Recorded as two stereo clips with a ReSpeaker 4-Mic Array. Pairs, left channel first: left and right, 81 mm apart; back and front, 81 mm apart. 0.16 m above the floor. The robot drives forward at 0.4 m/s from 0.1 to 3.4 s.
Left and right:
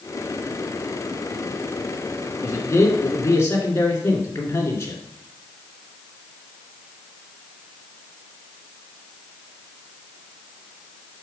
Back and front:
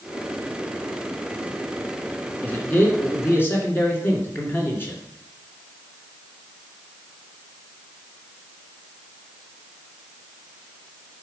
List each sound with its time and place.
2.4 s a man speaking: 120° left, 2 m; by 5.0 s 130° left, 2 m